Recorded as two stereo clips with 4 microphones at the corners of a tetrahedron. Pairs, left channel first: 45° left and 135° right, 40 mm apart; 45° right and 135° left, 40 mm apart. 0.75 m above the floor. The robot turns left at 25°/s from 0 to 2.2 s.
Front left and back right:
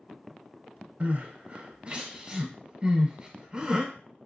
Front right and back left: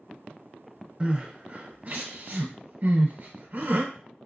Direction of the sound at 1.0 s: 165° right.